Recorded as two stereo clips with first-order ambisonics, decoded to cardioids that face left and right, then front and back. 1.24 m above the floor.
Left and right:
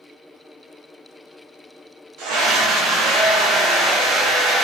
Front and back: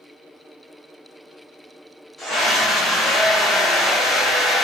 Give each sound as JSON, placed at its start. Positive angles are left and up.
{"t": 2.2, "sound": "a scream", "azimuth_deg": -90, "distance_m": 0.8}